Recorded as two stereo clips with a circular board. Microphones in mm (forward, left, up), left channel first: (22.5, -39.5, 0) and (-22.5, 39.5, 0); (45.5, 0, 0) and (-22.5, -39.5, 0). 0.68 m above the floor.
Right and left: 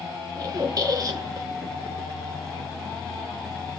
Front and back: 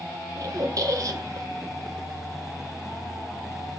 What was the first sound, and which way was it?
A squeak, 170° left.